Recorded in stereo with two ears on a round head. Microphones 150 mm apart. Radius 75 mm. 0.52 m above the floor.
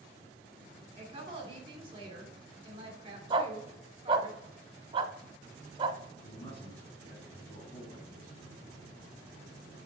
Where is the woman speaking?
30° right (ahead or behind), 1.7 m.